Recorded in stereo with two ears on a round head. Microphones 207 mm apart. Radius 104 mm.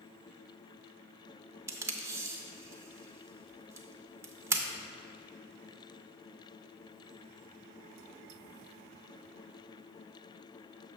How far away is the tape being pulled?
About 0.5 m.